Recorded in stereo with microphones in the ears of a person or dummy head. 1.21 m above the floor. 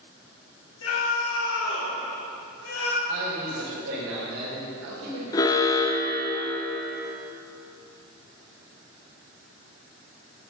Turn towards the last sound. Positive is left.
turn(degrees=20)  # may be behind; listen again after turning